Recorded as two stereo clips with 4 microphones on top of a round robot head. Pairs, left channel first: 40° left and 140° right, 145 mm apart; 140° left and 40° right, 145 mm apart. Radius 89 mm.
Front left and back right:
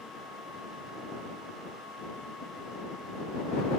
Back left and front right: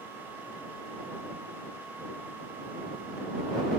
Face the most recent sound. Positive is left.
No sound to turn to.